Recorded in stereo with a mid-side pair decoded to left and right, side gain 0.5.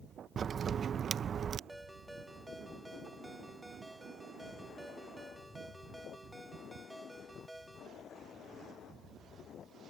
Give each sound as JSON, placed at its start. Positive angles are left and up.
{"t": 0.4, "sound": "a crack", "azimuth_deg": -45}
{"t": 1.7, "sound": "a ringtone", "azimuth_deg": -5}